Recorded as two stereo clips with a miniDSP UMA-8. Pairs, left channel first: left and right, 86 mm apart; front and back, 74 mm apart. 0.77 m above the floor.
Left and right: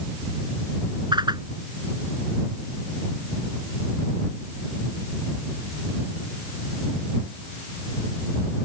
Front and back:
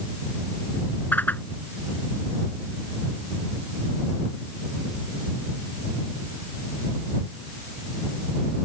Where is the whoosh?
65° right.